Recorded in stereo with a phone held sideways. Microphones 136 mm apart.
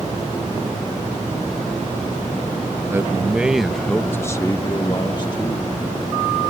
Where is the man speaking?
20° right (ahead or behind); by 5.7 s 35° left (ahead or behind).